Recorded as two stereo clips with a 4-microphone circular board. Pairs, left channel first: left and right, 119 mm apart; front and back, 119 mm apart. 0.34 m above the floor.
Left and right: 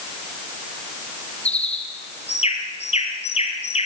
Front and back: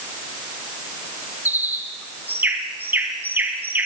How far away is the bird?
About 2.5 m.